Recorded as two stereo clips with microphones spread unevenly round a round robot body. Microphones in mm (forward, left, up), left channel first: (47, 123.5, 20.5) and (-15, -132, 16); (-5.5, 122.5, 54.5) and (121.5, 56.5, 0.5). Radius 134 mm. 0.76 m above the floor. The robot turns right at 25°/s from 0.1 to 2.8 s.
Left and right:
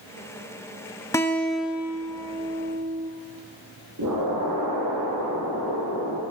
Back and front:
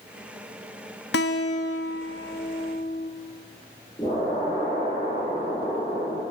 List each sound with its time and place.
1.1 s a guitar: 155° left, 0.7 m; by 3.1 s 160° right, 0.7 m
4.0 s an explosion: 135° right, 5.5 m